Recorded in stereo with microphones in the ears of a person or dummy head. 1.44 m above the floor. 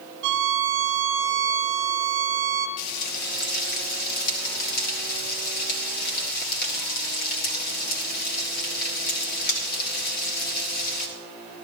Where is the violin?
65° right (ahead or behind), 0.6 m.